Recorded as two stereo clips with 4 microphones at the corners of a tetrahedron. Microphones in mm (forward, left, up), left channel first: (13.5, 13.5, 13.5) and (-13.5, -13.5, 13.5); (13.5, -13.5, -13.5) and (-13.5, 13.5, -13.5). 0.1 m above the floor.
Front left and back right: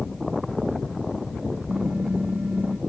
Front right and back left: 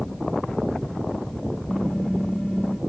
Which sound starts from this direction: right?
Typing on a keyboard, at 1.7 s.